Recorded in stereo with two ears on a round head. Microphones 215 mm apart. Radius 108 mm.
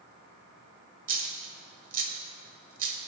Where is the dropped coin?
35° right (ahead or behind), 1.4 m.